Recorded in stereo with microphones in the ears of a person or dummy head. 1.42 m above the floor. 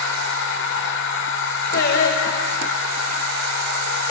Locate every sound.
0.0 s a machine running: 55° left (ahead or behind), 0.8 m
1.7 s singing: 60° left (ahead or behind), 1.1 m